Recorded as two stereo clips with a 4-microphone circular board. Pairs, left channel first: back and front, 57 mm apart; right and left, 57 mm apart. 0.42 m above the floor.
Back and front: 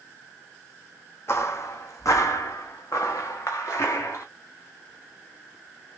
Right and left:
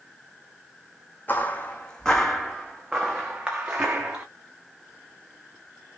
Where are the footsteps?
145° right, 1.1 m; by 4.2 s 150° left, 2 m.